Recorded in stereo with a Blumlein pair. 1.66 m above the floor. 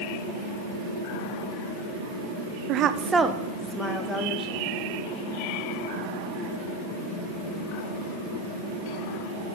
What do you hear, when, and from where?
2.7 s a woman speaking: 40° right, 0.6 m; by 4.6 s 15° left, 1.7 m